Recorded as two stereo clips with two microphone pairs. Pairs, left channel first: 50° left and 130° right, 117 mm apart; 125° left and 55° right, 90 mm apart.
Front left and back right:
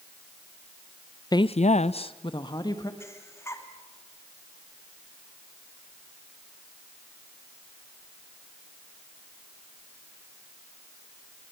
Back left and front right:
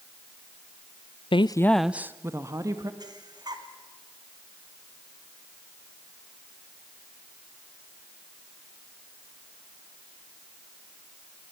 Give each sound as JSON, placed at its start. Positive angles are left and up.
{"t": 1.3, "sound": "a woman speaking", "azimuth_deg": 105, "distance_m": 0.6}
{"t": 3.0, "sound": "breathing", "azimuth_deg": -15, "distance_m": 2.0}